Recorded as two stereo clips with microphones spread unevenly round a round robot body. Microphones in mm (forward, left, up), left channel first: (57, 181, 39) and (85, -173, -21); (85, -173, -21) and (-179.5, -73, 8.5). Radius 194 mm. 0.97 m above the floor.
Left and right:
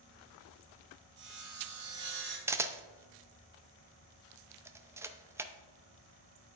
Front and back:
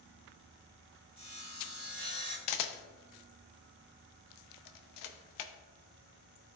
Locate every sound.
1.2 s sawing: 145° right, 3.5 m
2.5 s a camera shutter: 5° right, 0.5 m